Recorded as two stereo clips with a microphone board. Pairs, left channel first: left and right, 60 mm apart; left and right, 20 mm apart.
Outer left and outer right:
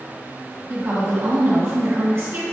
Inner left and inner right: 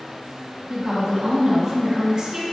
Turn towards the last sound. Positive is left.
turn(degrees=-40)  # may be behind; listen again after turning